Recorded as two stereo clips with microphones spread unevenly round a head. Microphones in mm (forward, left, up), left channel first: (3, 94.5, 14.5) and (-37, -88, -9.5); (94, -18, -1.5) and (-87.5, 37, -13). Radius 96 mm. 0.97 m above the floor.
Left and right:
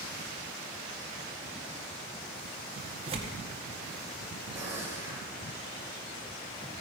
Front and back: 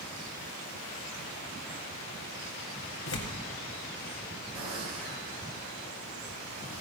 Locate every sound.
3.1 s tearing paper: 45° right, 1.8 m
4.5 s a gunshot: straight behind, 4.5 m